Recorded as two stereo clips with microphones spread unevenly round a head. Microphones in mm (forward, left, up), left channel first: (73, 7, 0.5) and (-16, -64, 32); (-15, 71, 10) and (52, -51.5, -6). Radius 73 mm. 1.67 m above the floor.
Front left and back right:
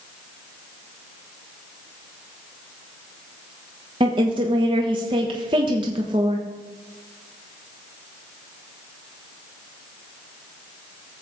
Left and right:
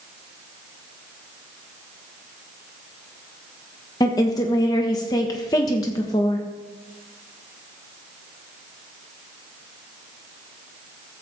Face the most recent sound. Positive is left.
turn(degrees=180)